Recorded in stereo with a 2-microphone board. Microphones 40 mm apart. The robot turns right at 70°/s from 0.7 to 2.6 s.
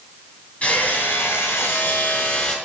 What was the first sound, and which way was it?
Hammering, 35° left.